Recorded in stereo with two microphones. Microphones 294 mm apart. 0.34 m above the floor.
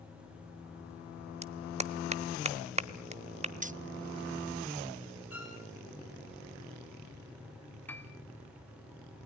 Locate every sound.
1.4 s a clap: 25° right (ahead or behind), 1.0 m
3.6 s keys jangling: 25° right (ahead or behind), 0.6 m
5.3 s a violin: 50° left (ahead or behind), 5.5 m
7.9 s a piano: 5° left (ahead or behind), 2 m